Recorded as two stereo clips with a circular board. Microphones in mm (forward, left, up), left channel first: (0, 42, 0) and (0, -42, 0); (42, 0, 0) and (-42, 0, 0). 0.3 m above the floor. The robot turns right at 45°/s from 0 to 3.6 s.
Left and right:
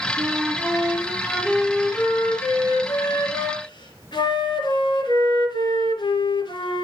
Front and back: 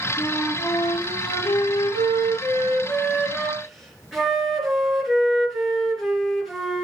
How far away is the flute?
About 4.5 m.